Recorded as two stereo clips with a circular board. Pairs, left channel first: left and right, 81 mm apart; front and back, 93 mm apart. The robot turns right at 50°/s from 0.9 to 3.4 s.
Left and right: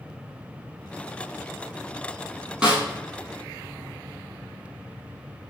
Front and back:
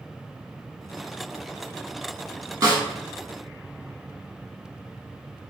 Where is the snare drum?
160° right, 1.3 m; by 2.8 s 145° right, 1.3 m.